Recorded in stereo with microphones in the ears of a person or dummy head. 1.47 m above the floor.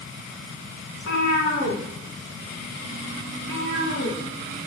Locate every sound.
0.9 s a cat meowing: 75° left (ahead or behind), 4 m